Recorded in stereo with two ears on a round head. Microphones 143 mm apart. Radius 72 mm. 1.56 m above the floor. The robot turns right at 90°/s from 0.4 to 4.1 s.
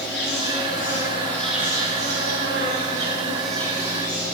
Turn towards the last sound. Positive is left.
turn(degrees=55)